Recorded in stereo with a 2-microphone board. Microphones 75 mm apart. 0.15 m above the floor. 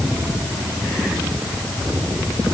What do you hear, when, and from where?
Only background noise.